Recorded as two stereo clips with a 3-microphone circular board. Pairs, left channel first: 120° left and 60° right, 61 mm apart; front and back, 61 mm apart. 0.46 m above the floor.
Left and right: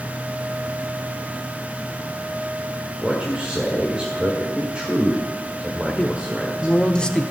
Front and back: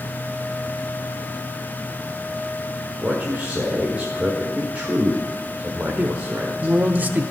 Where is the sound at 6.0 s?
Straight behind, 0.8 m.